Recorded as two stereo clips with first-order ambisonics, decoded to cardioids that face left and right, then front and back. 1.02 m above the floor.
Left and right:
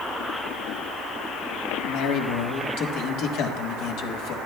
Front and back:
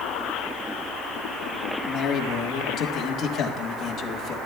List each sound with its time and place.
1.8 s a man speaking: 60° left, 1.4 m